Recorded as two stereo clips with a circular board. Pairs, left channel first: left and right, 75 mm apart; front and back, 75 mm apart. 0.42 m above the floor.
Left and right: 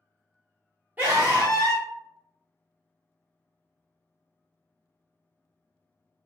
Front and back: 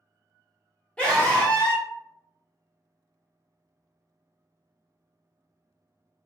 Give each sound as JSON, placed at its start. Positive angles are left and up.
{"t": 1.0, "sound": "a scream", "azimuth_deg": -55, "distance_m": 1.0}